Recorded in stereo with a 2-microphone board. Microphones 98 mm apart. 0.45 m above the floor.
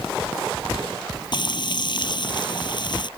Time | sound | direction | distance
1.3 | frying | 50° left (ahead or behind) | ?